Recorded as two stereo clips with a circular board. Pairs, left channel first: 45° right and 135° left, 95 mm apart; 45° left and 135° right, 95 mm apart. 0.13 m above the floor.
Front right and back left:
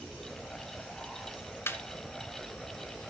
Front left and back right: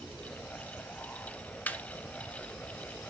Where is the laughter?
10° right, 1.3 m.